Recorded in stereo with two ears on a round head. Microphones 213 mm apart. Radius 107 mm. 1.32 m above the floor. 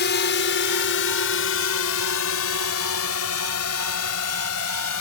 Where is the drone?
45° left (ahead or behind); by 5.0 s 75° left (ahead or behind).